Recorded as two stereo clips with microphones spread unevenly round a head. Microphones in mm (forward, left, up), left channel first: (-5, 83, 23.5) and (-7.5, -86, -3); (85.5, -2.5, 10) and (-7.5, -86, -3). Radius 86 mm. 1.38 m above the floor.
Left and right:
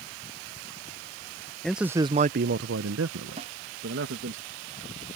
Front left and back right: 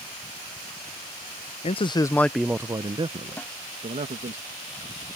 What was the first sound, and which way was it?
A man speaking, 5° left.